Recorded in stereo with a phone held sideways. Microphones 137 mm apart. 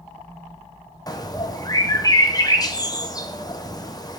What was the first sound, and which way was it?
A bird, 30° left (ahead or behind).